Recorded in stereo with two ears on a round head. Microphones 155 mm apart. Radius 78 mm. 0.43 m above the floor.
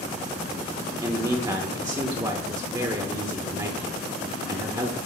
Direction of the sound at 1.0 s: 20° right (ahead or behind).